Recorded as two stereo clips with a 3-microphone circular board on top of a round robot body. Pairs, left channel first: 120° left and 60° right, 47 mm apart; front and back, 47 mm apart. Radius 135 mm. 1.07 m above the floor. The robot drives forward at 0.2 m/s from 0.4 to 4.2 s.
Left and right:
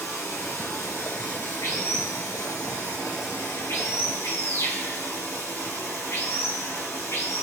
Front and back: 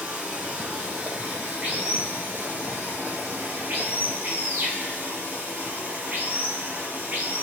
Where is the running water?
115° left, 3 m; by 7.4 s 130° left, 3.5 m.